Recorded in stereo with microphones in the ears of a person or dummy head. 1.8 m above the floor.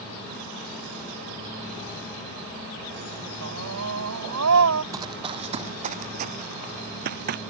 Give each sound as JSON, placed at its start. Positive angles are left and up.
{"t": 3.4, "sound": "a scream", "side_deg": -85}
{"t": 4.9, "sound": "running footsteps", "side_deg": -15}